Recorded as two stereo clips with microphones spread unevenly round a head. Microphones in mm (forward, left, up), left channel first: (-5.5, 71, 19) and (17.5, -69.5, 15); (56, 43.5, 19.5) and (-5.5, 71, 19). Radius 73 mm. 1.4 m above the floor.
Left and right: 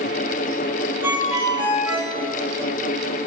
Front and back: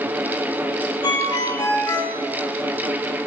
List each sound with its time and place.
1.0 s a ringtone: 5° right, 5 m